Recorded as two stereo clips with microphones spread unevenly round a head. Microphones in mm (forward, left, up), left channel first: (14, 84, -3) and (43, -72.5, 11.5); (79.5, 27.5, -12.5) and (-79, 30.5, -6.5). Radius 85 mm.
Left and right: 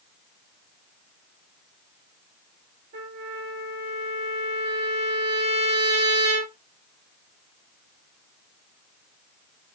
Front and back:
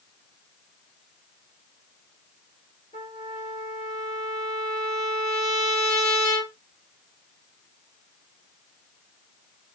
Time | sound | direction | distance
2.9 | a trumpet | 65° right | 4 m